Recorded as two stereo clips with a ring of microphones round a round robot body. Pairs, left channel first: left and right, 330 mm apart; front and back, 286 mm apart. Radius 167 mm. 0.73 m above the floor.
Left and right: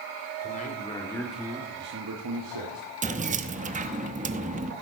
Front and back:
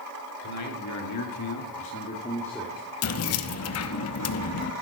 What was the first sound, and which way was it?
A man speaking, 25° left.